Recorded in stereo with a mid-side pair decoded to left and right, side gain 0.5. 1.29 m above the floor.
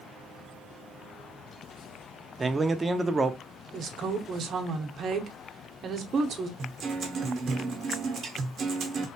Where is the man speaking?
25° right, 0.7 m.